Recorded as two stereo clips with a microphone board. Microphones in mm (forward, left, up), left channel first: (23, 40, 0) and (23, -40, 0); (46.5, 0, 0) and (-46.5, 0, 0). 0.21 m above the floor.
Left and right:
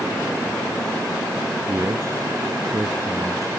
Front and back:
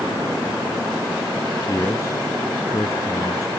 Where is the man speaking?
45° right.